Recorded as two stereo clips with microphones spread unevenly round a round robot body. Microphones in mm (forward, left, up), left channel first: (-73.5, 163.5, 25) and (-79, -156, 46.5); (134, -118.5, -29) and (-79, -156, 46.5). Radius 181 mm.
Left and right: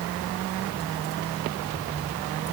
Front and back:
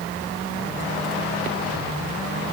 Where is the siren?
I don't hear a siren.